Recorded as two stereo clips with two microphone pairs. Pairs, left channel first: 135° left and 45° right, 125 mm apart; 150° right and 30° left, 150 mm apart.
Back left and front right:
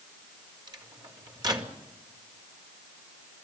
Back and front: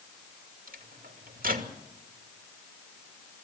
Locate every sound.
0.7 s a microwave: 15° left, 2.5 m